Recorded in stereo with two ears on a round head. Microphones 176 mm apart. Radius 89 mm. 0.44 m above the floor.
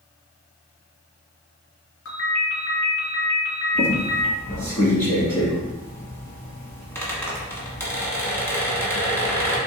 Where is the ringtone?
85° left, 2 m.